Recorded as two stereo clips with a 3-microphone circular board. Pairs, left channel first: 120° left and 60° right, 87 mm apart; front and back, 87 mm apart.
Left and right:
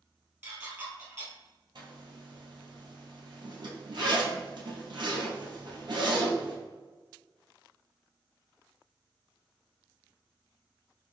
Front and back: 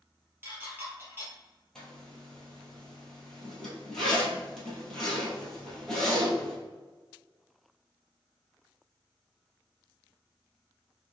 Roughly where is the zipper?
Right.